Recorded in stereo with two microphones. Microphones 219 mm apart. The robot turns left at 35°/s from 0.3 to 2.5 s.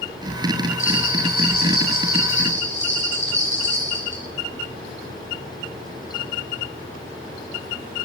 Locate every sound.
0.8 s a bell: 115° left, 7.5 m; by 4.2 s 55° left, 7.5 m